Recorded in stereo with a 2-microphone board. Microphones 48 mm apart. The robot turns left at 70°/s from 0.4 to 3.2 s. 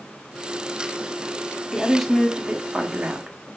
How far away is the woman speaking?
About 0.8 m.